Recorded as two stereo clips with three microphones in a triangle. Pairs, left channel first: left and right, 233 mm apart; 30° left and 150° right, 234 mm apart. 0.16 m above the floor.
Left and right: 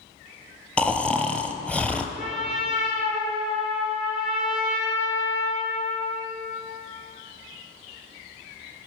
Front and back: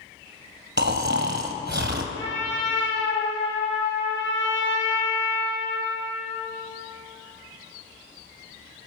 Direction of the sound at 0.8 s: 175° left.